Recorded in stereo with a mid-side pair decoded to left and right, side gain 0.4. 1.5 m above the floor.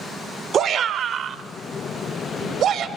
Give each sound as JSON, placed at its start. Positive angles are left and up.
{"t": 0.5, "sound": "a shout", "azimuth_deg": -65, "distance_m": 1.4}